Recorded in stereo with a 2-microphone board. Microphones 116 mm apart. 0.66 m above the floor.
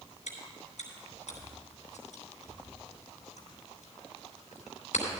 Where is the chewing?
85° left, 3 m.